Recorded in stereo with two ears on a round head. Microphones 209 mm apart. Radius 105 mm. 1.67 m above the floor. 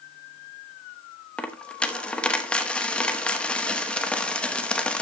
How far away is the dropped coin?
About 1.0 m.